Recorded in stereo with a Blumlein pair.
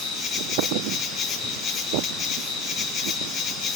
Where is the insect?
30° left, 1.2 m.